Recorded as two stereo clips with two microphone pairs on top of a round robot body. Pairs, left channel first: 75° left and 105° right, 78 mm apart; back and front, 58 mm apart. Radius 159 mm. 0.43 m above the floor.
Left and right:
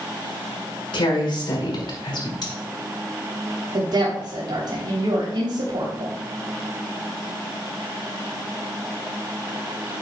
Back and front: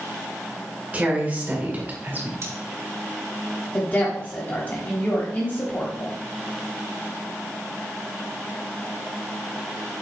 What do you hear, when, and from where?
0.9 s a woman speaking: 65° left, 5 m; by 2.3 s 60° left, 4 m
2.4 s cutlery clinking: 40° left, 2.5 m
3.7 s a woman speaking: 130° right, 3 m